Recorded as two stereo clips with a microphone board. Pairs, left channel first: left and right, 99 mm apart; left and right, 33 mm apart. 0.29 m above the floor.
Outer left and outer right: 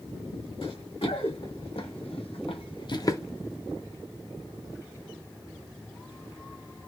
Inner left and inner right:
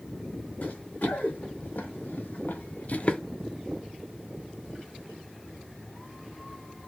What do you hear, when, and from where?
0.6 s running footsteps: 65° left (ahead or behind), 1.5 m; by 3.2 s 30° left (ahead or behind), 0.5 m